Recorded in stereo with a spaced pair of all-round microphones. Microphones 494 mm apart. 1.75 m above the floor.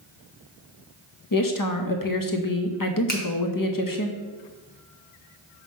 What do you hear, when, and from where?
1.3 s a woman speaking: 40° left (ahead or behind), 0.8 m
3.1 s a finger snap: 20° left (ahead or behind), 1.2 m